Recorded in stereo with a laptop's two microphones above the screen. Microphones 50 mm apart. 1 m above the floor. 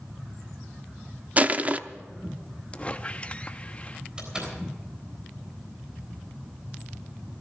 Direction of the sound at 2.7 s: 25° left (ahead or behind).